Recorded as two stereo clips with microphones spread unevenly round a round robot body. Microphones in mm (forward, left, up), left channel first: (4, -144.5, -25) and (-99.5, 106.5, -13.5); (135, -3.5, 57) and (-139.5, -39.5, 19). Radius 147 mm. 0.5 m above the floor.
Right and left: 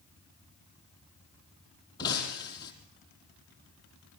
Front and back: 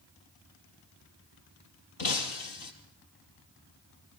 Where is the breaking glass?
10° left, 3.5 m.